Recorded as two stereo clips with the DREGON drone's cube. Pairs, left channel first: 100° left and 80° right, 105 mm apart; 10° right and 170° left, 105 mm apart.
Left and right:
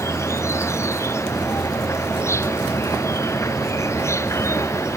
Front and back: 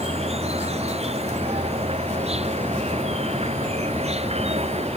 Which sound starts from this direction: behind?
An insect, at 0.0 s.